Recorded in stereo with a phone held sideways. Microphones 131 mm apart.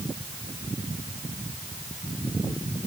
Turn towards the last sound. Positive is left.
No sound to turn to.